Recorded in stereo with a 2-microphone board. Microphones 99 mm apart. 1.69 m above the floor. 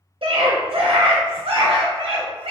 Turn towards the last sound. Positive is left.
turn(degrees=-65)  # may be behind; listen again after turning